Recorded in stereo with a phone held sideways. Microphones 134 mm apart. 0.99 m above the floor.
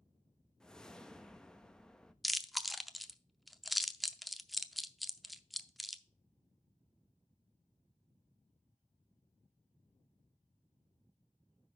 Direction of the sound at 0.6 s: 5° left (ahead or behind).